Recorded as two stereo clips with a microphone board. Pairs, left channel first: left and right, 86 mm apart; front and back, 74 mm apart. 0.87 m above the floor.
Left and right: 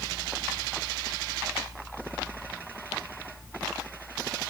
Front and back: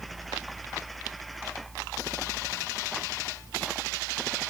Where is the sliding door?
I don't hear a sliding door.